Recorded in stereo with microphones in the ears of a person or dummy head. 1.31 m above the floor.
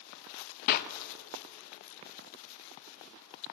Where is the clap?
50° left (ahead or behind), 1.0 m.